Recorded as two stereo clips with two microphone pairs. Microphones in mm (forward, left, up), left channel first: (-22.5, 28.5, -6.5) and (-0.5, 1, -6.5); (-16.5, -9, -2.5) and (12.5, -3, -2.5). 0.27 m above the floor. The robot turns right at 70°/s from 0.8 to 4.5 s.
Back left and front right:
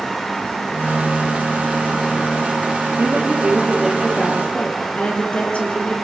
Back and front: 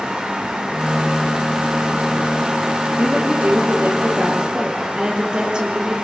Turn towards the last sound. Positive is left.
turn(degrees=75)